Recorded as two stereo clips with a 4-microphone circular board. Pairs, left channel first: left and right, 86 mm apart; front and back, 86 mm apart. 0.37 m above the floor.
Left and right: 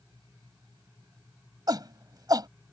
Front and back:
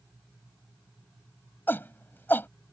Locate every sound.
1.7 s a shout: 65° right